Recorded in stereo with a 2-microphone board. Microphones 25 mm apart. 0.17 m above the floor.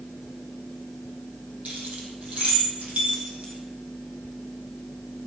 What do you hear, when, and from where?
1.6 s keys jangling: 65° right (ahead or behind), 5 m; by 3.5 s 60° right (ahead or behind), 6.5 m